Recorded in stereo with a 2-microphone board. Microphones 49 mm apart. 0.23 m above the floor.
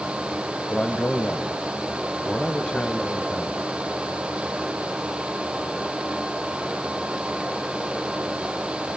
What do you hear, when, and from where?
0.7 s a man speaking: 20° left (ahead or behind), 1.2 m